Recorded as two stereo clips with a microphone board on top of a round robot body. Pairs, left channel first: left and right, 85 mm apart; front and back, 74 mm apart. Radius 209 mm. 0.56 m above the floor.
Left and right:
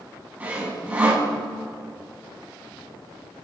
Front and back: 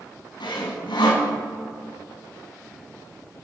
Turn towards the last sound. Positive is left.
turn(degrees=-15)